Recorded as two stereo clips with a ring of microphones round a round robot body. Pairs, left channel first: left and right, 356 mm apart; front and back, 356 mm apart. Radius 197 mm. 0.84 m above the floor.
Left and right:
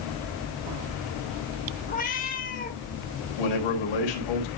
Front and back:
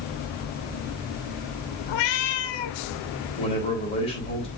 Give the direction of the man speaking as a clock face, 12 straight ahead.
9 o'clock.